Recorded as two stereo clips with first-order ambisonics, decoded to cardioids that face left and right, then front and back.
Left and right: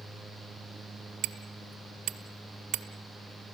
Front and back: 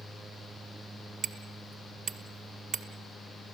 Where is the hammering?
130° right, 1.7 m.